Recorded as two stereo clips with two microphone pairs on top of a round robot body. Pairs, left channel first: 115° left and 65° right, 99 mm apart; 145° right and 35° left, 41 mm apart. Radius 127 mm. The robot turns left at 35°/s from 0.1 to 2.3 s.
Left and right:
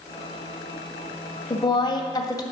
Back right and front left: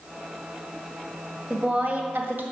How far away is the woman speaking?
About 1.8 m.